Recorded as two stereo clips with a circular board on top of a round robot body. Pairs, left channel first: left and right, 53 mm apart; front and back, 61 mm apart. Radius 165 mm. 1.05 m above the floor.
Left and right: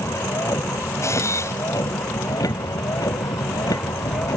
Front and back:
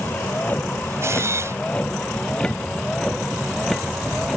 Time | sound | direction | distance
0.0 | a vehicle | 60° left | ?
1.0 | a camera shutter | 130° left | ?